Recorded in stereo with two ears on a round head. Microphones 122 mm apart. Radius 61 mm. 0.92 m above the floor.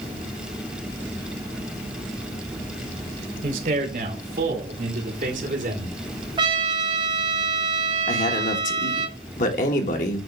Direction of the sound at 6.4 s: 35° right (ahead or behind).